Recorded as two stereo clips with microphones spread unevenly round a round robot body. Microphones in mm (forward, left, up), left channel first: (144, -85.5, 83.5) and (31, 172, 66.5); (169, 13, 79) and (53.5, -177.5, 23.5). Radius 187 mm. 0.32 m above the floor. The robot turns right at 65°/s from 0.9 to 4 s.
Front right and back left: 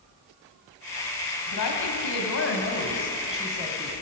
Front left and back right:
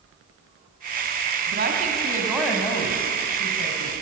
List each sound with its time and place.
1.5 s a woman speaking: 95° right, 2.5 m; by 3.9 s 65° left, 2.5 m